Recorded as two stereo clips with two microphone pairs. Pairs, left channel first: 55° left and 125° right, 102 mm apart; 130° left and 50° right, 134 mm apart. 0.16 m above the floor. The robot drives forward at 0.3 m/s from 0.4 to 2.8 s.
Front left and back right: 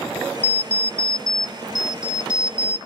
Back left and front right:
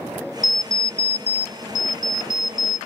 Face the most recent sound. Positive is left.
turn(degrees=170)